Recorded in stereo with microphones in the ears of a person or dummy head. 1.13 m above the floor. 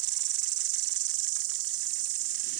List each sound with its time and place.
0.0 s an insect: 75° right (ahead or behind)